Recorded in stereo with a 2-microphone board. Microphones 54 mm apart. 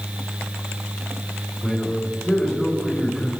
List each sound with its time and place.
1.6 s a man speaking: centre (ahead or behind), 4.5 m